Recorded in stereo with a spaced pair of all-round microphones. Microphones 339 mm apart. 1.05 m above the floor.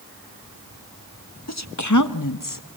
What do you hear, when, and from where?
1.5 s a woman speaking: 50° left (ahead or behind), 1.2 m; by 2.6 s 70° left (ahead or behind), 1.4 m